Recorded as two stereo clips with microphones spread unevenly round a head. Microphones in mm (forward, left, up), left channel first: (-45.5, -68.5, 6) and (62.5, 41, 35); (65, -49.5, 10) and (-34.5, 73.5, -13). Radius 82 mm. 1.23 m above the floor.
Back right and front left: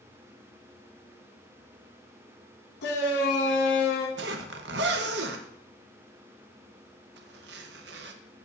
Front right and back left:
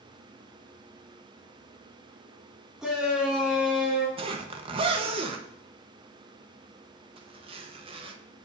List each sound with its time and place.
2.8 s a shout: 145° right, 1.5 m
4.2 s a zipper: 70° left, 1.0 m